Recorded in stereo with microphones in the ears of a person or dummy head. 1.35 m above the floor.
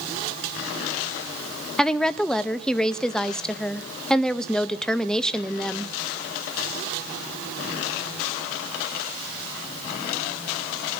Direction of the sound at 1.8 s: 5° left (ahead or behind).